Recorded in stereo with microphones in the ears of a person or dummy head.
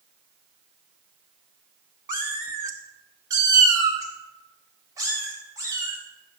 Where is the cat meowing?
10° right (ahead or behind), 0.9 m; by 6.0 s 20° right (ahead or behind), 4.5 m.